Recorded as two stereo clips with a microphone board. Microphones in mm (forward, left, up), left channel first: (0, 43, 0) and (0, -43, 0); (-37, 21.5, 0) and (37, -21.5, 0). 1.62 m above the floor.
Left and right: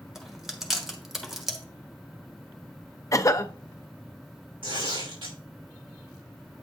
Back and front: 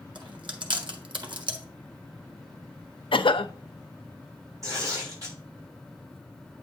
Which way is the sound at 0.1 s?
5° right.